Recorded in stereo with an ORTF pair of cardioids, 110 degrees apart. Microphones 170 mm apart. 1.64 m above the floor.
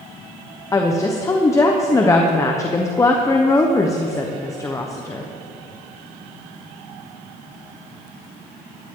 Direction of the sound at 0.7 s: 20° left.